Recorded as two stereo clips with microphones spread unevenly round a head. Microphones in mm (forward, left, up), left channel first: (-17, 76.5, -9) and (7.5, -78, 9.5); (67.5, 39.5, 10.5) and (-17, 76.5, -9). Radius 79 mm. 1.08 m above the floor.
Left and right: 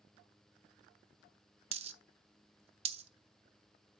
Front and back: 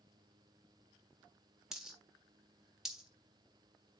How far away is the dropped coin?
About 0.7 m.